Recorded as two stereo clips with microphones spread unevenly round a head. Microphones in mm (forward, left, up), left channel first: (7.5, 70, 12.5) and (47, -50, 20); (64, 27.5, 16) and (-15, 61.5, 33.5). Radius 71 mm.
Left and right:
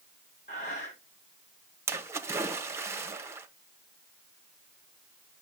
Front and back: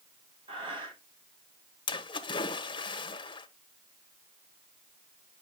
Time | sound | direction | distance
0.5 | breathing | 150° left | 3 m
1.9 | a splash | straight ahead | 1.0 m